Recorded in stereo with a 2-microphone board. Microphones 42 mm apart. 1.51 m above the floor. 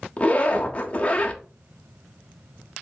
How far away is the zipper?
About 0.7 m.